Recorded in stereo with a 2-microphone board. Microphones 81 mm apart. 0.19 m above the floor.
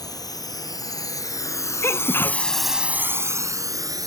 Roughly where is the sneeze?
Left.